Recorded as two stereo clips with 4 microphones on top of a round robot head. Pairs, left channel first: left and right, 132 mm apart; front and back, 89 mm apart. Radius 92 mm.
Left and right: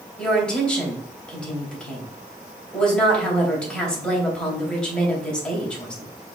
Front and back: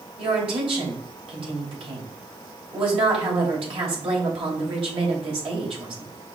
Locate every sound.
0.2 s a woman speaking: 175° left, 3 m